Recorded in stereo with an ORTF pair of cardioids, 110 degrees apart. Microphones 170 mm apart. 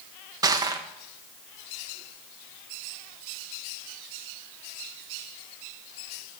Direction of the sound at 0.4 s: 20° right.